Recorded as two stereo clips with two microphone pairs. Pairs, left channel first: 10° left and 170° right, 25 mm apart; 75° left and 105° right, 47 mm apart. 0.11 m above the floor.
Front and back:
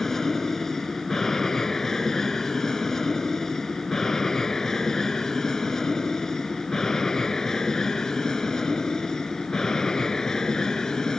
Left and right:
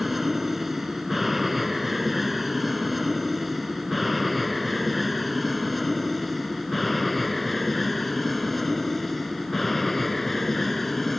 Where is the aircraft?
25° right; by 11.2 s 10° right.